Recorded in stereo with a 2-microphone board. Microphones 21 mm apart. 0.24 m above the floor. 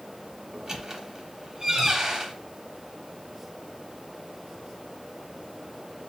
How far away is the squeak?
About 1.0 m.